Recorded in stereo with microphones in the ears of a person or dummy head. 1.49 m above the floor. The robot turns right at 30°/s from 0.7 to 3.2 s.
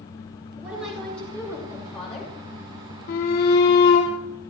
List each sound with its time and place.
0.6 s a woman speaking: 10° right, 6 m; by 2.4 s 40° left, 6 m
3.1 s a shout: 50° left (ahead or behind), 3 m; by 4.1 s 55° left (ahead or behind), 3 m